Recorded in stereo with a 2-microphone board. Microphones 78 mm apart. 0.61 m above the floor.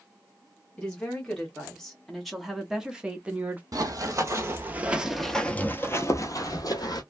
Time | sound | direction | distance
0.8 | a woman speaking | 15° left (ahead or behind) | 1.6 m
3.7 | running footsteps | 50° right (ahead or behind) | 1.0 m